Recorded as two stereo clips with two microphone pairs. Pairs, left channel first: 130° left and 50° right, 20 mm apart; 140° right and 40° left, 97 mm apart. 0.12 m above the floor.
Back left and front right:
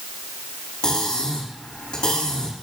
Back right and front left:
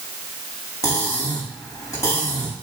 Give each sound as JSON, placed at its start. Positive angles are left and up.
{"t": 0.8, "sound": "cutlery clinking", "azimuth_deg": 165, "distance_m": 5.5}